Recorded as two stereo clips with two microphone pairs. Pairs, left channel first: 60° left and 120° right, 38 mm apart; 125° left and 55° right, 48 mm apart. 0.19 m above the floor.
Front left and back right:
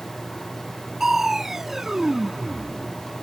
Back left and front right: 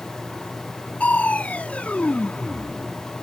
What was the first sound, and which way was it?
Crushing, 170° left.